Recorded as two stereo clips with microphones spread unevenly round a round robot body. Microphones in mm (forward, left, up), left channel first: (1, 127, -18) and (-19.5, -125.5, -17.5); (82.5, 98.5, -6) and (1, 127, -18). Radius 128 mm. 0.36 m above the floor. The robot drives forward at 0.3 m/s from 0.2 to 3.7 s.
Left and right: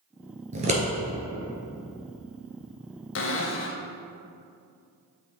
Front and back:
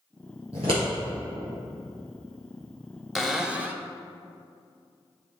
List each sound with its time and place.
0.5 s scissors: 155° right, 1.6 m; by 0.8 s 160° right, 1.7 m
3.1 s a cupboard door: 80° left, 0.6 m; by 3.9 s 100° left, 0.6 m